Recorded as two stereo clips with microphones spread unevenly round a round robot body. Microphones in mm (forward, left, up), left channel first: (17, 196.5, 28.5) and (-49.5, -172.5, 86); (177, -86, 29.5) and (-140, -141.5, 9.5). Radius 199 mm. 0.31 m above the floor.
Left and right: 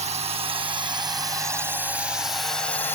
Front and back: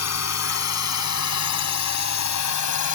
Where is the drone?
25° right; by 3.0 s 5° left.